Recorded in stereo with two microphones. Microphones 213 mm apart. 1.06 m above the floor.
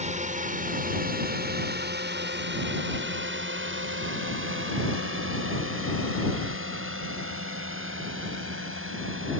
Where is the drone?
35° right (ahead or behind); by 9.4 s 75° right (ahead or behind).